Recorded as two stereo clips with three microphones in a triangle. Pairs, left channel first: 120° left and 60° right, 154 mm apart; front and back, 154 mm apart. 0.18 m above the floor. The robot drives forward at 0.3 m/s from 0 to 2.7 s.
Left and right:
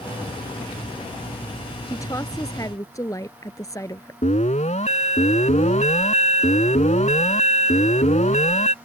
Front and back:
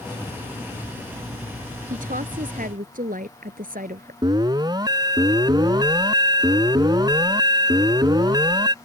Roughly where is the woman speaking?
Behind.